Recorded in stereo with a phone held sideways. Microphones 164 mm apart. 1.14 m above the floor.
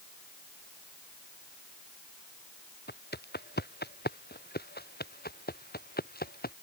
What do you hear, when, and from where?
2.9 s footsteps: 85° left; by 6.5 s 65° left (ahead or behind)